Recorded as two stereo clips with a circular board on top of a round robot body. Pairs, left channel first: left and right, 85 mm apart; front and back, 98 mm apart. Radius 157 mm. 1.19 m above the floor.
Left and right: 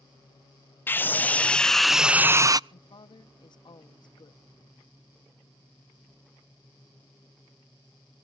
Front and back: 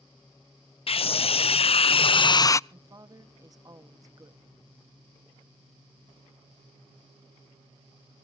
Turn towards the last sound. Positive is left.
turn(degrees=125)